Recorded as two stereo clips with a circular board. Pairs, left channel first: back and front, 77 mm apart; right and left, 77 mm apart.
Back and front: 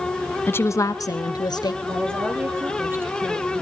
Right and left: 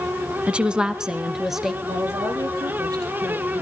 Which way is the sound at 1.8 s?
60° left.